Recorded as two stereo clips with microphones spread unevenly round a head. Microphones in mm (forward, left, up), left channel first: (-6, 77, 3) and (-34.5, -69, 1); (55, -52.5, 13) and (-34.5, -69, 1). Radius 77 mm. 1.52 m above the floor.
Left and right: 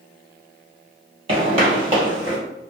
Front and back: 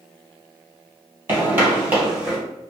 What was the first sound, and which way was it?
Footsteps, 115° right.